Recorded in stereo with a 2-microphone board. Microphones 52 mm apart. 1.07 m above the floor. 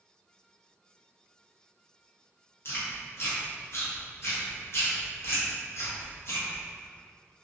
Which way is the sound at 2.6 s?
55° left (ahead or behind).